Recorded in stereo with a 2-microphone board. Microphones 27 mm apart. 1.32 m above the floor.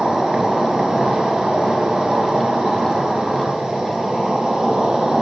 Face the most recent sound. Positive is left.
turn(degrees=-35)  # may be behind; listen again after turning